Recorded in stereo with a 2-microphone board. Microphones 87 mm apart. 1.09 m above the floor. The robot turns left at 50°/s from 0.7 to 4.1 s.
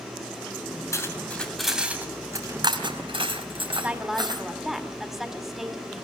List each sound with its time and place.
0.9 s cutlery clinking: 35° left (ahead or behind), 4.5 m; by 4.4 s 55° right (ahead or behind), 4.5 m
3.7 s a woman speaking: 25° right (ahead or behind), 4 m; by 6.0 s 5° right (ahead or behind), 4 m